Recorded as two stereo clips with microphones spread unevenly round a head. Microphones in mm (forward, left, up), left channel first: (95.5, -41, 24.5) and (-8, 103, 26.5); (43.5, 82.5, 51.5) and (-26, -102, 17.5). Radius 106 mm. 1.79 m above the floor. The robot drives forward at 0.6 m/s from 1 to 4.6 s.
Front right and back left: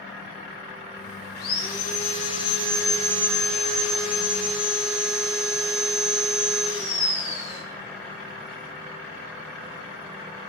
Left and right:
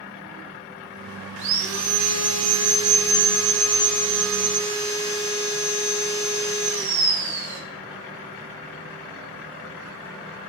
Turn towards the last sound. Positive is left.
turn(degrees=-150)